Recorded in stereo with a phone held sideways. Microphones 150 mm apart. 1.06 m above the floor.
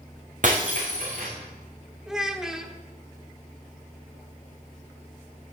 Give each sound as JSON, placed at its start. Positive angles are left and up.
{"t": 0.4, "sound": "breaking glass", "side_deg": -60, "distance_m": 5.0}
{"t": 2.1, "sound": "a child speaking", "side_deg": -5, "distance_m": 1.5}